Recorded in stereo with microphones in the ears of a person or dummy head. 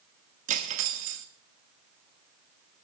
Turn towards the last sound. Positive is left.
turn(degrees=-40)  # may be behind; listen again after turning